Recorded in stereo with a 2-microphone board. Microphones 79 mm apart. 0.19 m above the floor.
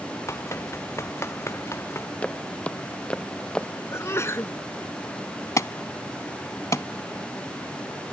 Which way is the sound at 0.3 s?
35° left (ahead or behind).